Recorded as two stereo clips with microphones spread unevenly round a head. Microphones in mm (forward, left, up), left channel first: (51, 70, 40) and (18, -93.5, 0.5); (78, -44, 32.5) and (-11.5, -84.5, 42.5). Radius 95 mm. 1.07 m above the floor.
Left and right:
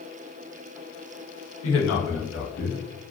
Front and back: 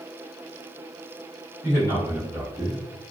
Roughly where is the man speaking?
Left.